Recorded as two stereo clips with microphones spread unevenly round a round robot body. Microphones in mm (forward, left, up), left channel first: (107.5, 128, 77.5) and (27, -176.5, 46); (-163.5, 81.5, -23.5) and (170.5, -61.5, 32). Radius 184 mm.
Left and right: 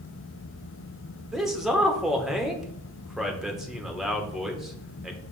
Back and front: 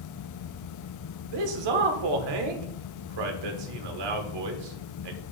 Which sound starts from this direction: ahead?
A man speaking, at 1.3 s.